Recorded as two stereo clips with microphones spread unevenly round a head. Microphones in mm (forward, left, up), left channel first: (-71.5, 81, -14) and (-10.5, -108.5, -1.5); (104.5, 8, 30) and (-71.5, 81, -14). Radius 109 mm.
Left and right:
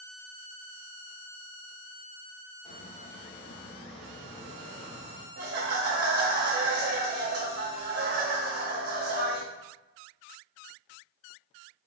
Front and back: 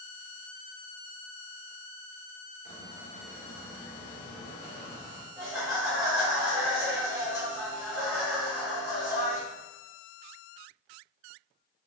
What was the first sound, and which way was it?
A squeak, 155° left.